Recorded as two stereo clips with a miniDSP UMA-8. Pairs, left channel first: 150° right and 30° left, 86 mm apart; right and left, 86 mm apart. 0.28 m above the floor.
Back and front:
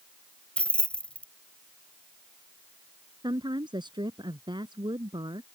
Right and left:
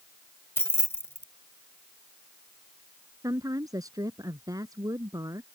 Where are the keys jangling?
90° right.